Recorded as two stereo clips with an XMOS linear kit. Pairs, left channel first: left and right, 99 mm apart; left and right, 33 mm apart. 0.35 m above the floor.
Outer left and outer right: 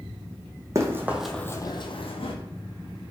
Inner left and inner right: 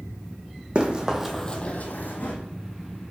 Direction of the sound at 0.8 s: 30° right (ahead or behind).